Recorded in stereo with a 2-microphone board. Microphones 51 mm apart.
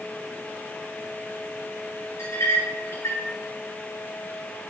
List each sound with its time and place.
2.2 s a clink: 75° left (ahead or behind), 3 m